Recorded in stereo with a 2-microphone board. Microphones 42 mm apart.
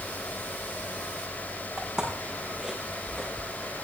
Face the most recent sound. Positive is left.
turn(degrees=0)  # may be behind; listen again after turning